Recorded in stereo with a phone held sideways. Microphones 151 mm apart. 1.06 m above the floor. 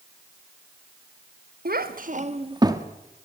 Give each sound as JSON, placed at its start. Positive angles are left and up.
{"t": 1.6, "sound": "a child speaking", "side_deg": -90, "distance_m": 1.4}